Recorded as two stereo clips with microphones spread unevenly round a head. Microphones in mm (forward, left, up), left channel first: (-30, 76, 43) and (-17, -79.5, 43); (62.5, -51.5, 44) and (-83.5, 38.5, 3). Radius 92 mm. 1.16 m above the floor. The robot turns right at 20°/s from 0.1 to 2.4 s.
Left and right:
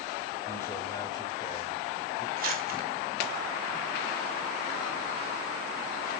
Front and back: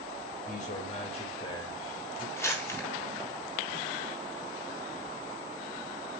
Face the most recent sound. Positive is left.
turn(degrees=-110)